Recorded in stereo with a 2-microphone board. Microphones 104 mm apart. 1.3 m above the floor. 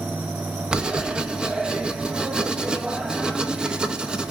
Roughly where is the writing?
Centre.